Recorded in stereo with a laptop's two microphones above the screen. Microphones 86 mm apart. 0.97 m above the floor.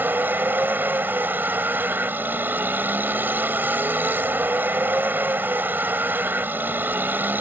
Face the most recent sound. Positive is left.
turn(degrees=-20)  # may be behind; listen again after turning